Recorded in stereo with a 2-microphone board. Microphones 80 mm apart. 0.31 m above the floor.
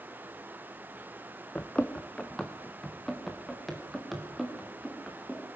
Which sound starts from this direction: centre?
Running footsteps, at 1.6 s.